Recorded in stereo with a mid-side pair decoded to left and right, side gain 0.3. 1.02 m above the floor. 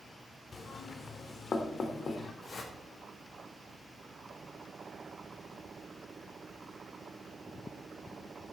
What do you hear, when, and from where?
0.5 s knocking: 60° left, 2 m
2.4 s a whoosh: 60° left, 4.5 m